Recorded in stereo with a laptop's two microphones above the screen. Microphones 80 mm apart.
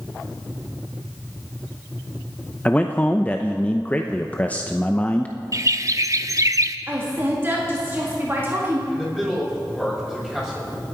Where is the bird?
40° right (ahead or behind), 0.7 m.